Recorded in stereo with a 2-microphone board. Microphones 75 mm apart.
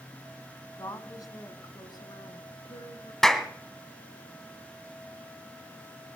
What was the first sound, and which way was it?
A woman speaking, 55° left (ahead or behind).